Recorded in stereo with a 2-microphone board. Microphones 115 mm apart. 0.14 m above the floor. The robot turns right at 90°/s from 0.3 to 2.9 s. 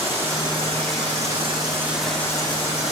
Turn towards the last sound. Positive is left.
turn(degrees=80)